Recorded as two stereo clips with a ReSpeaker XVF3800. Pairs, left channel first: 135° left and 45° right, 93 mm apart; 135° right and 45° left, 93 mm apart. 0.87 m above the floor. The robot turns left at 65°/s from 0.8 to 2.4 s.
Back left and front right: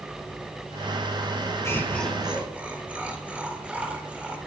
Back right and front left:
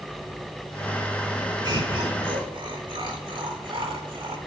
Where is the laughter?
80° left, 3.5 m; by 4.4 s 30° left, 3.5 m.